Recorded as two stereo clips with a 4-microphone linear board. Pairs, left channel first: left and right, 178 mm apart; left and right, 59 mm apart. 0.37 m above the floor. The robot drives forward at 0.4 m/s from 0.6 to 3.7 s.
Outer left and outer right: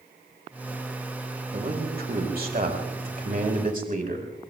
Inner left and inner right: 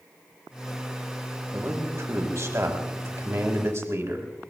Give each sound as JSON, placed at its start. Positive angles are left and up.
{"t": 1.5, "sound": "a man speaking", "side_deg": -60, "distance_m": 2.0}